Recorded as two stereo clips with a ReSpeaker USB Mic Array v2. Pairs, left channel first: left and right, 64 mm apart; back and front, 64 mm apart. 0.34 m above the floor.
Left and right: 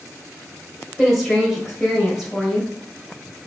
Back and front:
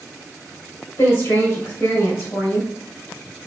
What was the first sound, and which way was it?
A woman speaking, straight behind.